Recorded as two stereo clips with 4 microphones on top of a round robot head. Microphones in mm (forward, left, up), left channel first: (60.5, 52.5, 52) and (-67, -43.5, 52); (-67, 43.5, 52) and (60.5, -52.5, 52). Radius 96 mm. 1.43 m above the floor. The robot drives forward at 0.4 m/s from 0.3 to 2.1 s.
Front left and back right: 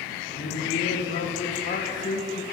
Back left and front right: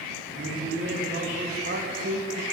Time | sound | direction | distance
0.3 | a man speaking | straight ahead | 2.5 m